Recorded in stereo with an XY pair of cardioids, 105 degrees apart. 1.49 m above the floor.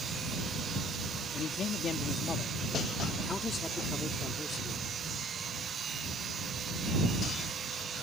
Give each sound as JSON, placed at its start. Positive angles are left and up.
{"t": 1.3, "sound": "a man speaking", "azimuth_deg": 55}